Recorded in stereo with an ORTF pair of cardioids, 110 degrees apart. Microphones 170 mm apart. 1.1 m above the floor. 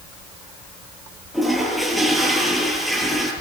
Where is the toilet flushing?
Straight ahead, 9 m.